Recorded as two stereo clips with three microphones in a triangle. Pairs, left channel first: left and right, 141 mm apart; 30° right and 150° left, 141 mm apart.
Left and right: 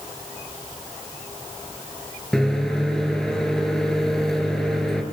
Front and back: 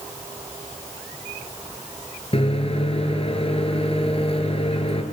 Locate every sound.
2.3 s a microwave: 5° left, 2 m